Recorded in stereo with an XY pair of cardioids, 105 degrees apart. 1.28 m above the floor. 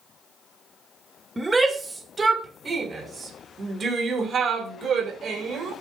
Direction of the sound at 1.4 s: 20° right.